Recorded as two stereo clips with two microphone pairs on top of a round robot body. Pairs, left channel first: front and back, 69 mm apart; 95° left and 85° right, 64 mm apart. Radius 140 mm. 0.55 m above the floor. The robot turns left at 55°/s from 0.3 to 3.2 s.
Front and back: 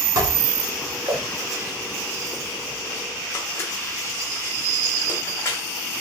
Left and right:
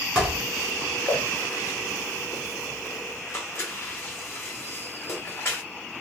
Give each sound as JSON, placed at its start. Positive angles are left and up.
{"t": 0.1, "sound": "dishes clattering", "azimuth_deg": -155, "distance_m": 1.4}